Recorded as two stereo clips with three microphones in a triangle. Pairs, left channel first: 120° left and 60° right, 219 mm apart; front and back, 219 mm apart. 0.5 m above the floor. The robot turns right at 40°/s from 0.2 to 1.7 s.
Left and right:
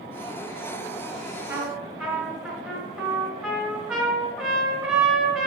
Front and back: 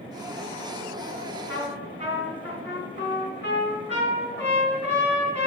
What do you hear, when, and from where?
1.5 s a trumpet: 20° left, 2.5 m; by 5.5 s 25° left, 2.5 m